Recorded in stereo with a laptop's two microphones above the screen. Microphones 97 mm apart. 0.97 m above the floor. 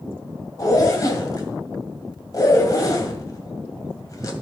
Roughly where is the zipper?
Left.